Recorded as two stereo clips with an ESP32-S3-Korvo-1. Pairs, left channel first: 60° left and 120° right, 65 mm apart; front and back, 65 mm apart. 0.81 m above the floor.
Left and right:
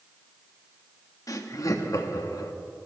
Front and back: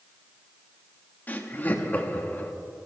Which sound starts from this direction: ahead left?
Laughter, at 1.3 s.